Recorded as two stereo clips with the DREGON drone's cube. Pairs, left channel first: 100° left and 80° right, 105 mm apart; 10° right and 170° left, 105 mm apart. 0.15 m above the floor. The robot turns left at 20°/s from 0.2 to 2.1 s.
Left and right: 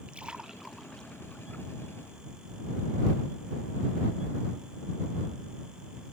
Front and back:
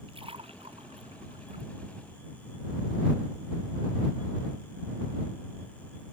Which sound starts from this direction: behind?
A splash, at 0.1 s.